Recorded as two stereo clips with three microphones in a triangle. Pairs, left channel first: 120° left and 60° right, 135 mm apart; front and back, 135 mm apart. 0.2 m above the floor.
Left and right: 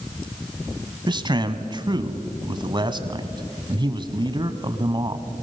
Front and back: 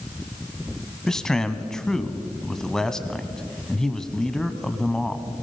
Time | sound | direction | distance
1.1 | a man speaking | 85° right | 1.2 m